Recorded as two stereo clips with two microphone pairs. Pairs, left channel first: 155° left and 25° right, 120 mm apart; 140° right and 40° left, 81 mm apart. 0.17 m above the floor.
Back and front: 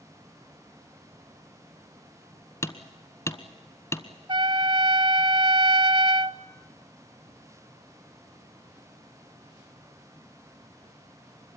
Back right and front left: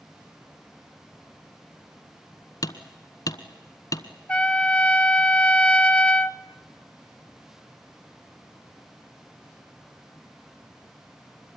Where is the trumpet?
65° right, 0.6 m.